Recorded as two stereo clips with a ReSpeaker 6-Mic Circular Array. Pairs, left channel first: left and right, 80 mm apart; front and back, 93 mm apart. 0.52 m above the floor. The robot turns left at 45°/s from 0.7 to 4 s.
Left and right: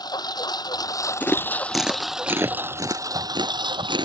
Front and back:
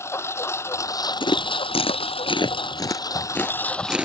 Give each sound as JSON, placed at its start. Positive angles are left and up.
{"t": 0.0, "sound": "a lawn mower", "azimuth_deg": 60}
{"t": 1.2, "sound": "chewing", "azimuth_deg": 25}